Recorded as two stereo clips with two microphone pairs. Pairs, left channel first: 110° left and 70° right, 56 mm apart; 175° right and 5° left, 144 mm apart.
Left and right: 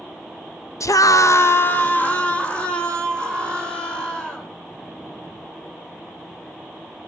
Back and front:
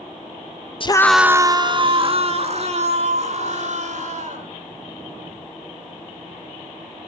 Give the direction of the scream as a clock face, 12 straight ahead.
7 o'clock.